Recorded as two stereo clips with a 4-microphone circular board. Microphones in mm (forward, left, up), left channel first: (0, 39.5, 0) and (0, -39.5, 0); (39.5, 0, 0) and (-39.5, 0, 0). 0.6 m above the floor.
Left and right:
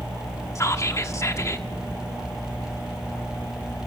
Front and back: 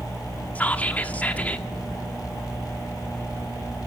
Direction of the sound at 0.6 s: 60° left.